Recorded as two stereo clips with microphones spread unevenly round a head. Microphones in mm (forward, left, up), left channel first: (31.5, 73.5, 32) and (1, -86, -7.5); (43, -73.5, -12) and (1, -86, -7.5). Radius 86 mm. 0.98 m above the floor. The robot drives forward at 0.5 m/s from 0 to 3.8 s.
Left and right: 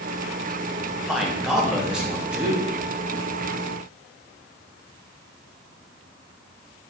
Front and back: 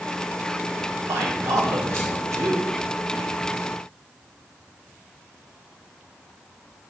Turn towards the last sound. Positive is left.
turn(degrees=180)